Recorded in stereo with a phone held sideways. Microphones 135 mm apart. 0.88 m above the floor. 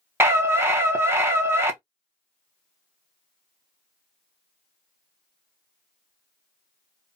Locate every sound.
0.2 s a scream: 20° right (ahead or behind), 0.6 m